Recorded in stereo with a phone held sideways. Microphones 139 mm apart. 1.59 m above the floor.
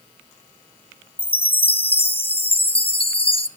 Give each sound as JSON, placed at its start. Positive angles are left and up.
{"t": 1.2, "sound": "a chime", "side_deg": 45, "distance_m": 0.6}